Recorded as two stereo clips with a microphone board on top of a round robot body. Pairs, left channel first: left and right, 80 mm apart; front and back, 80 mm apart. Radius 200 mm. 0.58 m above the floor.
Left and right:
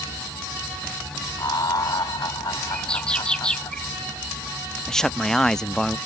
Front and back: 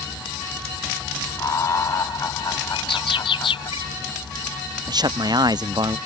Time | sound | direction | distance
1.4 | laughter | 50° left | ?
2.7 | a bird | 10° left | ?
4.9 | a man speaking | 170° left | ?